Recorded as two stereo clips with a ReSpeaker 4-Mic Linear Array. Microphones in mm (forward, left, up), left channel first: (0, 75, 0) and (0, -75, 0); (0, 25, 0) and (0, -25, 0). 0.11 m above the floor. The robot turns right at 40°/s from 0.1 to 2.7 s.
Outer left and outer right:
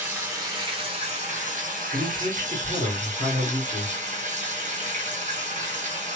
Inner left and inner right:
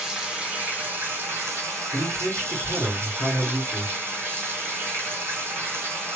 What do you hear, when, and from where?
0.0 s running water: 165° right, 2 m; by 6.2 s 60° right, 2 m
1.9 s a man speaking: 85° right, 2.5 m; by 3.9 s 55° right, 2.5 m